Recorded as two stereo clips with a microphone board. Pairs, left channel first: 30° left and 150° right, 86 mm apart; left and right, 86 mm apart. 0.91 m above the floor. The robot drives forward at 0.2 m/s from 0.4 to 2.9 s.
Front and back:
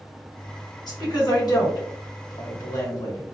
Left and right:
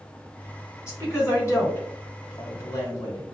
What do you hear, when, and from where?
0.9 s a woman speaking: 40° left, 1.3 m; by 3.2 s 55° left, 1.1 m